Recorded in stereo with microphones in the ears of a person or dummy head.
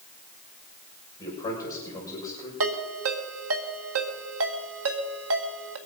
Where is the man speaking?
20° left (ahead or behind), 6 m.